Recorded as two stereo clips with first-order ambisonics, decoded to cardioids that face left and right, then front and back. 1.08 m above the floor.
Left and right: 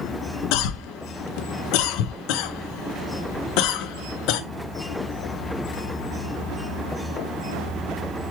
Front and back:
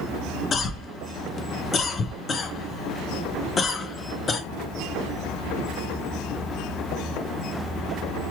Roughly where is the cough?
Left.